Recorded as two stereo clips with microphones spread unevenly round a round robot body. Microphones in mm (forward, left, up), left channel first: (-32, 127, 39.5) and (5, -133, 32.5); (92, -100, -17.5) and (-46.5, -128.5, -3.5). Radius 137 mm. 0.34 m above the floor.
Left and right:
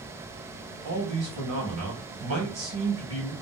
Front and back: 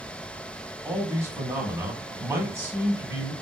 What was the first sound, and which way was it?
A man speaking, 95° right.